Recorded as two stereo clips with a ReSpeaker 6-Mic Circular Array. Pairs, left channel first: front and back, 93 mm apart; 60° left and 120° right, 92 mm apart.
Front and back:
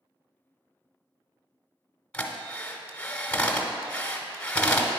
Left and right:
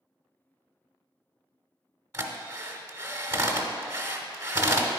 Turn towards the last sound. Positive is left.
turn(degrees=-75)